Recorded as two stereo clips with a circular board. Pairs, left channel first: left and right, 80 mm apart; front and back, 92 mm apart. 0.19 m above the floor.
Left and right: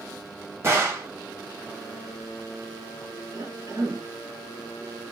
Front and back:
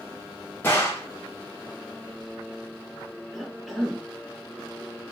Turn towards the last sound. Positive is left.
turn(degrees=-90)